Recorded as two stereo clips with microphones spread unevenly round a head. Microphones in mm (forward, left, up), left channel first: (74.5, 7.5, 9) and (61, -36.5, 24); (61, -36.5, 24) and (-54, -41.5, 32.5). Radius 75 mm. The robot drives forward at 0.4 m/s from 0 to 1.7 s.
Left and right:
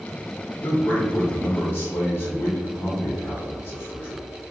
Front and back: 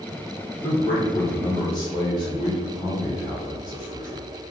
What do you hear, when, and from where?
0.6 s a man speaking: 50° left, 1.5 m; by 4.2 s 65° left, 1.3 m